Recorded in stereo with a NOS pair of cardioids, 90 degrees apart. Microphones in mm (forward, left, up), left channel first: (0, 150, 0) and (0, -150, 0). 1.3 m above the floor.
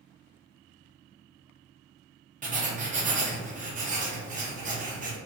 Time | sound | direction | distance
2.4 | writing | 25° right | 0.7 m